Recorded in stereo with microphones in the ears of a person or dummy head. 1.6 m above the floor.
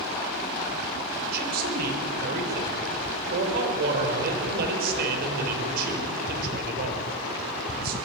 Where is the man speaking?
60° right (ahead or behind), 5.5 m.